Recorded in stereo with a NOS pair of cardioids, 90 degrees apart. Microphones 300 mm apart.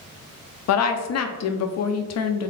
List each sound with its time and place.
0.7 s a woman speaking: 55° left, 0.7 m